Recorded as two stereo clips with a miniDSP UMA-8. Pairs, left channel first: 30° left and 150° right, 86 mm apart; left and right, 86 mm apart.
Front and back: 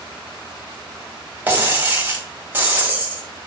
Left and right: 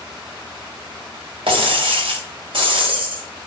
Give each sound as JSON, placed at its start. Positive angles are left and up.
{"t": 1.5, "sound": "breaking glass", "azimuth_deg": -80, "distance_m": 1.8}